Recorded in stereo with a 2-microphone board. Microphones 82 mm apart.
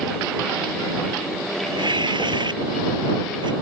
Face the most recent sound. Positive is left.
turn(degrees=-60)  # may be behind; listen again after turning